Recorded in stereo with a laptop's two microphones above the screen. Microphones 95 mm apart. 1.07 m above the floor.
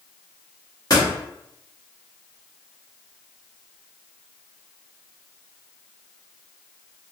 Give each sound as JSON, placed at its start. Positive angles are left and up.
{"t": 0.9, "sound": "a door slam", "side_deg": 40, "distance_m": 0.9}